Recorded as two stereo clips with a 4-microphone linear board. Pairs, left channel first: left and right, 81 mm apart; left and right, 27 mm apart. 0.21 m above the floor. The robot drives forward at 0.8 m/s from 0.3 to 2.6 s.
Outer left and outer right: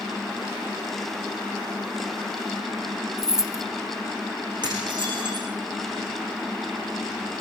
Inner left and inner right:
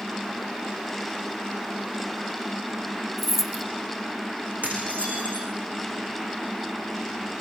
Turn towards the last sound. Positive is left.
turn(degrees=-70)  # may be behind; listen again after turning